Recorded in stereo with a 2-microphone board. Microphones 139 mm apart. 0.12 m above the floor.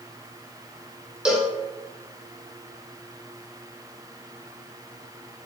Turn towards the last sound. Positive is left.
turn(degrees=-5)  # may be behind; listen again after turning